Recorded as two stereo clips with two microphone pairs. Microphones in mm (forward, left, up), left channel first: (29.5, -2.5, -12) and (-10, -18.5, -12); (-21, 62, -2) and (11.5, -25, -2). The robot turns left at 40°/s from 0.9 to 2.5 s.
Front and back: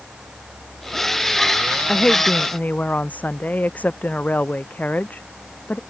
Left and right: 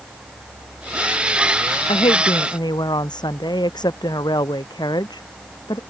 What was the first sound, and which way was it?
A woman speaking, 95° left.